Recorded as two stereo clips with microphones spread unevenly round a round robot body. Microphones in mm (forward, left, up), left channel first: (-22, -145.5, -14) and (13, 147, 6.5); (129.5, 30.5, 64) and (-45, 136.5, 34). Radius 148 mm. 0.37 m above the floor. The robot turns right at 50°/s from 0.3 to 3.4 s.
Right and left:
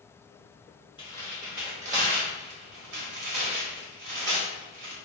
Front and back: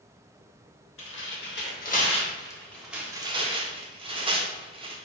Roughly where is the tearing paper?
Ahead right.